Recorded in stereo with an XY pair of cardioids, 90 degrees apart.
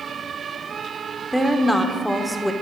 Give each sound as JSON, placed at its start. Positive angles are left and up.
{"t": 1.3, "sound": "a woman speaking", "azimuth_deg": 0, "distance_m": 0.9}